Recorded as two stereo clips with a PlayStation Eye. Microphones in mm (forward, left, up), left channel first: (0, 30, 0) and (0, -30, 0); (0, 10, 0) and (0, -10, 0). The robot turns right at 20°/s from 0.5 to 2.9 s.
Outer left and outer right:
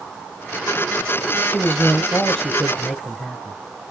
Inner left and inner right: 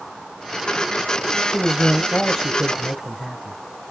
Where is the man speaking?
15° left (ahead or behind), 1.3 m; by 3.6 s 5° left (ahead or behind), 1.3 m.